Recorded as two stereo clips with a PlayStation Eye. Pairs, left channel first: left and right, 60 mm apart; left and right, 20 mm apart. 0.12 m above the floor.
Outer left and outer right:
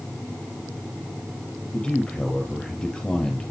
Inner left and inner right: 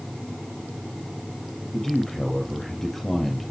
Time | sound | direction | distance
1.7 | a man speaking | 15° left (ahead or behind) | 3 m